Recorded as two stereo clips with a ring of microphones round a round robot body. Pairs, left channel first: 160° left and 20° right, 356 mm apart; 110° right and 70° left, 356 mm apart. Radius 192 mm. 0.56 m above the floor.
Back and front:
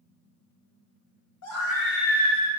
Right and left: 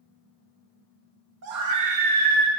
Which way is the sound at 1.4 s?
110° left.